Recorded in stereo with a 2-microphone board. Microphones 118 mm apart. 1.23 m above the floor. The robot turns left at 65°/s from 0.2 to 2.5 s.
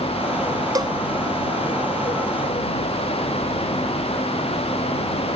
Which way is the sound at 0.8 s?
30° right (ahead or behind).